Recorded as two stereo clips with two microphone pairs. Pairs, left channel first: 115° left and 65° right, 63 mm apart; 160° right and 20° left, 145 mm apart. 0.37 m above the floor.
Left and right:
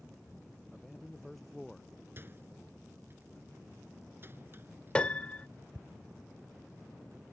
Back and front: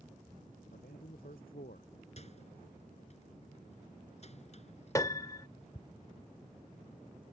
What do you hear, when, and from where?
0.7 s a man speaking: 160° right
2.2 s a microwave: 120° right
5.0 s a piano: 160° left